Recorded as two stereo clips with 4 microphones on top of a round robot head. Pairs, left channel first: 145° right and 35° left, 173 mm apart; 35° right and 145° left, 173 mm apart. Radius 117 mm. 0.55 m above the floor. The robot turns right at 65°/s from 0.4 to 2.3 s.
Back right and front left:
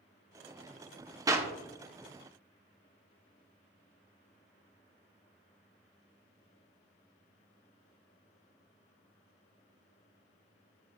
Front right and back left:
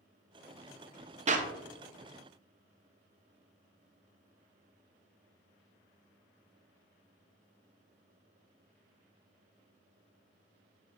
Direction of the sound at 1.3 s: 100° left.